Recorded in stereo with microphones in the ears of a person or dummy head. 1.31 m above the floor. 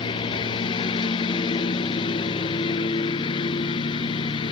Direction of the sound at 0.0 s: 25° left (ahead or behind).